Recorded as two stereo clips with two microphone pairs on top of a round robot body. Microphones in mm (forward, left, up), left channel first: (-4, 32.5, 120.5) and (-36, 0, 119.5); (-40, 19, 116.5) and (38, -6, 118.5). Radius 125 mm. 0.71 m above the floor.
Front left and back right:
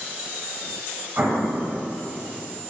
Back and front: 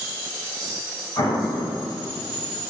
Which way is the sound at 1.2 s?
170° right.